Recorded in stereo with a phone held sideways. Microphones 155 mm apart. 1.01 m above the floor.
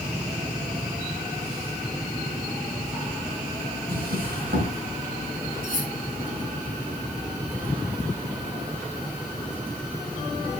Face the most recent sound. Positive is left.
turn(degrees=-60)  # may be behind; listen again after turning